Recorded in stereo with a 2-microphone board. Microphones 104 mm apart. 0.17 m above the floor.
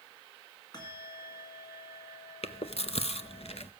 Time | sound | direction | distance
0.7 | a bell | 40° left (ahead or behind) | 2.0 m
2.4 | chewing | 70° left (ahead or behind) | 0.5 m